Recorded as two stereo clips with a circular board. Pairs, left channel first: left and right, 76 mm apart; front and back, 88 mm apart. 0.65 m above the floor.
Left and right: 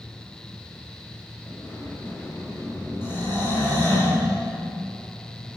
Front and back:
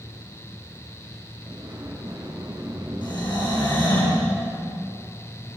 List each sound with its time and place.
1.5 s a sliding door: 145° left, 4 m
3.0 s snoring: 30° left, 7.5 m